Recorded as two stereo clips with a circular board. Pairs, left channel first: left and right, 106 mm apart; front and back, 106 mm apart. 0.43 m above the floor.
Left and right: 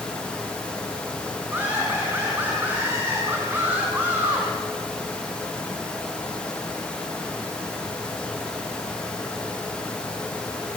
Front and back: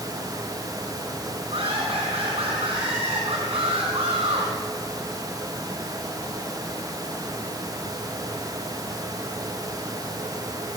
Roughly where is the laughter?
Behind.